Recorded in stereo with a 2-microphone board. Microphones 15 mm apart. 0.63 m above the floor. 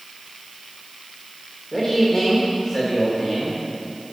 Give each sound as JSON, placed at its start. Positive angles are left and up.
{"t": 1.7, "sound": "a man speaking", "side_deg": 35, "distance_m": 1.6}